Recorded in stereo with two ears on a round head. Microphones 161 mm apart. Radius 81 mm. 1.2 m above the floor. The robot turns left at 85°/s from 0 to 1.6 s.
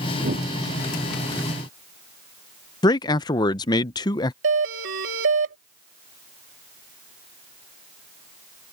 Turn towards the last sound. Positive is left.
turn(degrees=-75)  # may be behind; listen again after turning